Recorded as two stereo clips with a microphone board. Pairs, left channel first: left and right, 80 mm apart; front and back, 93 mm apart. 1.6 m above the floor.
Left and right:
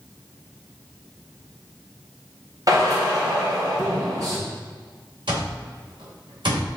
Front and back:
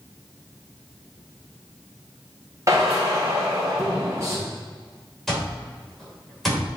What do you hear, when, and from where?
2.7 s a drill: 125° right, 3 m
5.3 s an alarm clock: 85° right, 3 m